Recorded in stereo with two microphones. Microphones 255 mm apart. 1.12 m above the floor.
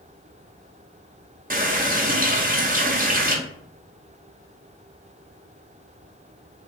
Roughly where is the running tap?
Right.